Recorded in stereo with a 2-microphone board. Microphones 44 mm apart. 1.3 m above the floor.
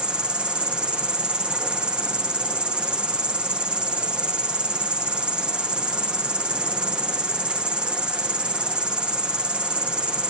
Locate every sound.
0.0 s an insect: 20° right (ahead or behind)